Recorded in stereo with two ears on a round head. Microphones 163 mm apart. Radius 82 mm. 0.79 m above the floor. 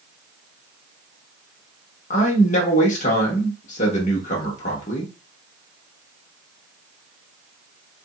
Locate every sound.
2.1 s a man speaking: 45° left (ahead or behind), 1.2 m